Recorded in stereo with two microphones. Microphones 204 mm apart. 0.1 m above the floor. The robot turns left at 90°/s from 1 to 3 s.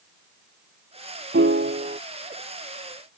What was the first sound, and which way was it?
A piano, 80° right.